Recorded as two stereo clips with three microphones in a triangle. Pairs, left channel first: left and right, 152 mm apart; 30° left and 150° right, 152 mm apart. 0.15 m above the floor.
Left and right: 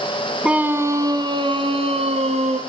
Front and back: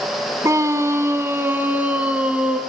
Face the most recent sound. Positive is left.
turn(degrees=-70)